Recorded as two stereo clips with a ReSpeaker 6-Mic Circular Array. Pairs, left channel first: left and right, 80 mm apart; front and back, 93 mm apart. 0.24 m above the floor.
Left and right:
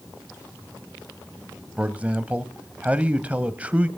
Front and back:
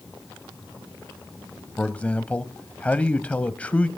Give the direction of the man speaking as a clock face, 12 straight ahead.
2 o'clock.